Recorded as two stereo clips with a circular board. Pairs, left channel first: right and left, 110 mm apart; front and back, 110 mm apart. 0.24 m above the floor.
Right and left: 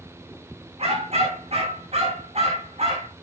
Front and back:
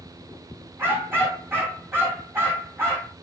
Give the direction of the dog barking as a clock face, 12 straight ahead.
8 o'clock.